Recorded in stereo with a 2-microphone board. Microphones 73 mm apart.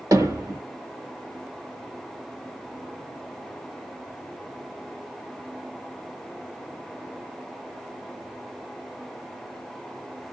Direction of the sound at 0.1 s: 50° right (ahead or behind).